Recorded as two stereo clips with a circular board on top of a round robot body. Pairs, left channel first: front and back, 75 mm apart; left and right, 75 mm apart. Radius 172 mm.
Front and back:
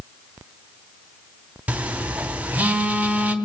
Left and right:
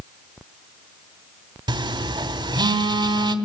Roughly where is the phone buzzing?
Right.